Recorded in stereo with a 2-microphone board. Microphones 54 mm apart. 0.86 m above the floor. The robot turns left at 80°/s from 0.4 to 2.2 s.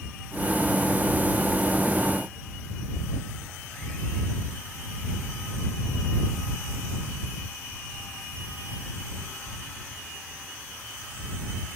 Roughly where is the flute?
I don't hear a flute.